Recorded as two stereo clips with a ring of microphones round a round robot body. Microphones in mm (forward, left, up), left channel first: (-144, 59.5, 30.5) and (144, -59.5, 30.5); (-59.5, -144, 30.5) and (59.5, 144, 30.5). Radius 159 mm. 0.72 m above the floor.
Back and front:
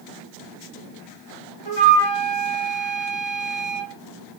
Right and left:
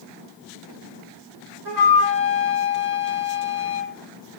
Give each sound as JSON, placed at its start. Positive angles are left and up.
{"t": 1.6, "sound": "a flute", "azimuth_deg": 120, "distance_m": 1.8}